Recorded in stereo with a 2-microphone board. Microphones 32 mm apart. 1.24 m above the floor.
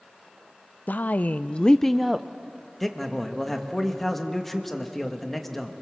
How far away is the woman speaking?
About 0.7 m.